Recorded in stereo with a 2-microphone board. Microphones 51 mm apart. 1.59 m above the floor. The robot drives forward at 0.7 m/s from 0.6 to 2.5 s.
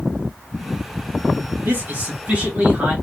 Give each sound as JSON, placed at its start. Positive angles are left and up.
{"t": 1.6, "sound": "a man speaking", "side_deg": -40, "distance_m": 1.4}